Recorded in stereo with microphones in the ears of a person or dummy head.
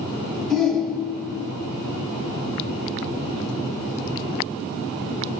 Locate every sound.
0.5 s a shout: 10° right (ahead or behind), 1.6 m